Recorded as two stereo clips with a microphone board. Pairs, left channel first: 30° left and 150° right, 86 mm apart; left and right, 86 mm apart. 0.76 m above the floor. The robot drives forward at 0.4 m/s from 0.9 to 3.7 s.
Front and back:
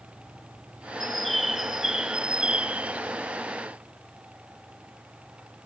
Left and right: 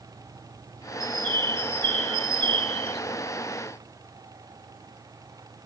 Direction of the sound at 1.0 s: 55° right.